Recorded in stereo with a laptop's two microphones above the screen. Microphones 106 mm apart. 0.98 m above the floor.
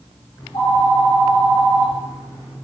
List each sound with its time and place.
0.4 s a phone ringing: 60° left (ahead or behind), 1.2 m